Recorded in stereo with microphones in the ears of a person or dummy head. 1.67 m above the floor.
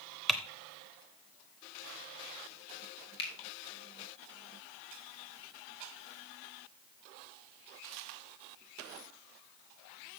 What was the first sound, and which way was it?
Typing on a keyboard, centre (ahead or behind).